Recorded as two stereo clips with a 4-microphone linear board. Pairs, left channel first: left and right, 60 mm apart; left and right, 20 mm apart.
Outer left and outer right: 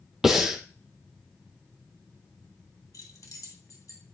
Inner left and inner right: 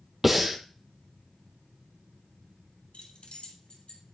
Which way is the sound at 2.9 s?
70° left (ahead or behind).